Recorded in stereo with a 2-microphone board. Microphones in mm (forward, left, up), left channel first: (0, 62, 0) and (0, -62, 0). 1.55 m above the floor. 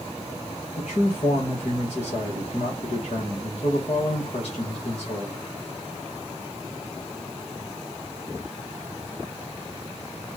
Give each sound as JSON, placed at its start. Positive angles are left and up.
{"t": 0.8, "sound": "a man speaking", "side_deg": 55, "distance_m": 1.6}